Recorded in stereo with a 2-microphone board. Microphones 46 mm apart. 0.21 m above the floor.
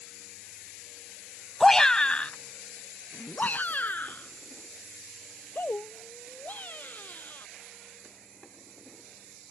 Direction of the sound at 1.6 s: 5° left (ahead or behind).